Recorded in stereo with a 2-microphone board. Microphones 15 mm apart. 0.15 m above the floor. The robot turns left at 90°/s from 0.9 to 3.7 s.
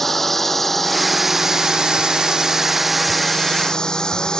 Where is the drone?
20° left (ahead or behind); by 4.4 s 65° left (ahead or behind).